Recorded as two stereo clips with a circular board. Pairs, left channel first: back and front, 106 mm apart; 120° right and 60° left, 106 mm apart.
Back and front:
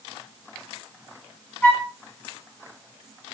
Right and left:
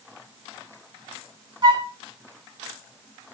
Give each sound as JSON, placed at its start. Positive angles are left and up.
{"t": 1.6, "sound": "a flute", "azimuth_deg": 110, "distance_m": 3.5}